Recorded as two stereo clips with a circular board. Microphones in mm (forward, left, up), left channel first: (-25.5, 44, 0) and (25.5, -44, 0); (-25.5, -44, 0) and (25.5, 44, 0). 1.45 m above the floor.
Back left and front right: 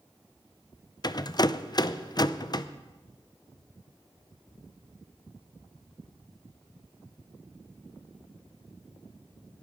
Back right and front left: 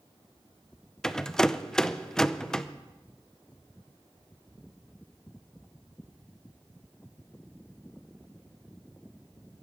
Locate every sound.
1.0 s a rattle: 155° left, 0.6 m